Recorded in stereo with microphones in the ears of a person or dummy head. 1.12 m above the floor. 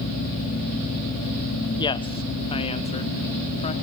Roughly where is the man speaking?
Left.